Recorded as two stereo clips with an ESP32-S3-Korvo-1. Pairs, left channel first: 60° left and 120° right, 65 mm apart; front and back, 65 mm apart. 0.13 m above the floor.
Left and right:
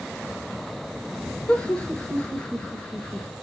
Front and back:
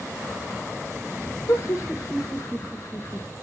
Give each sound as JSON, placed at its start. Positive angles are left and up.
{"t": 1.5, "sound": "laughter", "azimuth_deg": -5, "distance_m": 2.5}